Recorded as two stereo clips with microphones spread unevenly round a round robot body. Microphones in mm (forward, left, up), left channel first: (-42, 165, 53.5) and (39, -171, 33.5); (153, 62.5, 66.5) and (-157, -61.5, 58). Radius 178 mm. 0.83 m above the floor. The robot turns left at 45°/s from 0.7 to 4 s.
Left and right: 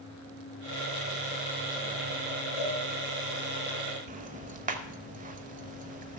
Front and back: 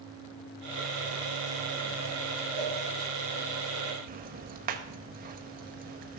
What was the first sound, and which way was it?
A cowbell, 65° left.